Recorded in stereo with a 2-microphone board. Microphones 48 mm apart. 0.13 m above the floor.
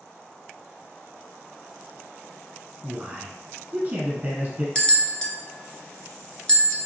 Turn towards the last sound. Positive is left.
turn(degrees=15)  # may be behind; listen again after turning